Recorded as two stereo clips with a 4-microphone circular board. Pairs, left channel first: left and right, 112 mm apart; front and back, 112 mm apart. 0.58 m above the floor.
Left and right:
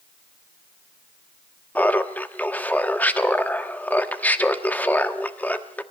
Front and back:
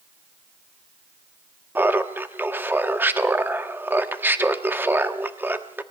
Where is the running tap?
I don't hear a running tap.